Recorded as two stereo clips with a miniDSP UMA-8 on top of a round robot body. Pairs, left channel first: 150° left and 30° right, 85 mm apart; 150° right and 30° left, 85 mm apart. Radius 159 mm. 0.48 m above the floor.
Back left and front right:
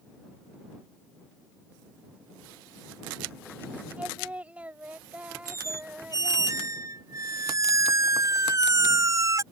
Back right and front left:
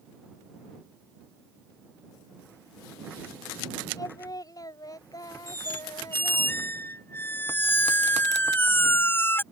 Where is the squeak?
85° right.